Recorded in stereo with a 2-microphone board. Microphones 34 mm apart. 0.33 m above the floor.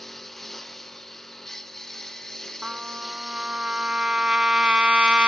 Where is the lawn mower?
10° left (ahead or behind); by 5.3 s 15° left (ahead or behind).